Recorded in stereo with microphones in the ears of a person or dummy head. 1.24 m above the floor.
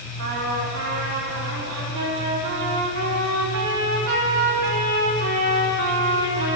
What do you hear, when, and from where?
0.2 s a trumpet: 70° right (ahead or behind), 4 m